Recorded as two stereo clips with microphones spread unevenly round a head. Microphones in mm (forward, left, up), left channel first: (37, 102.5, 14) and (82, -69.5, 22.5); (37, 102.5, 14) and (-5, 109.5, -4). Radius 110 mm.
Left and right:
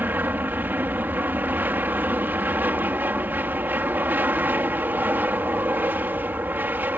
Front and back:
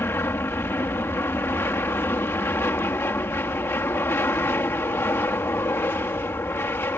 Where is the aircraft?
5° left.